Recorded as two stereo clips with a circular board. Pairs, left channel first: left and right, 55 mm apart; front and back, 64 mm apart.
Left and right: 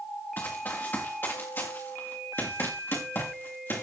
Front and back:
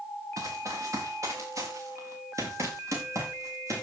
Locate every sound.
0.4 s running footsteps: 145° left, 3.5 m; by 3.8 s 135° left, 5.5 m